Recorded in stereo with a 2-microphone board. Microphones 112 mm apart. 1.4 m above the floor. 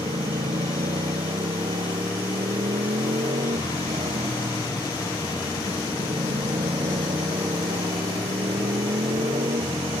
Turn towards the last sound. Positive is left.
turn(degrees=-80)